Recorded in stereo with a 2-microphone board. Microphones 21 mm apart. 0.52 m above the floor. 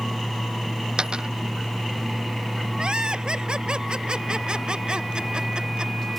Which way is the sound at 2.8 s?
45° right (ahead or behind).